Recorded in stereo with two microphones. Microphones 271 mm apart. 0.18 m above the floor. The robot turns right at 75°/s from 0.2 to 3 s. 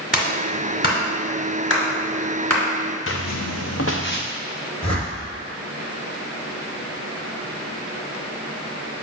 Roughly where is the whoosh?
Left.